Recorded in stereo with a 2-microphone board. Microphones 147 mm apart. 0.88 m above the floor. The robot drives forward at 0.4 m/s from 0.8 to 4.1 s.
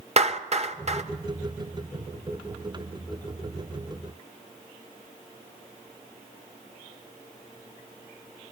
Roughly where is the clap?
Right.